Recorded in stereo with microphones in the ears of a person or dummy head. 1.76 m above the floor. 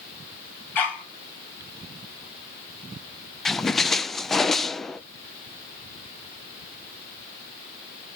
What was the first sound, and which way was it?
A dog barking, 10° left (ahead or behind).